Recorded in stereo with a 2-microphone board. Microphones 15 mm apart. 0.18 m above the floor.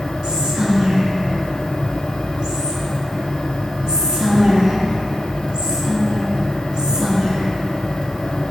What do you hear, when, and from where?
0.2 s whispering: 50° right (ahead or behind), 1.6 m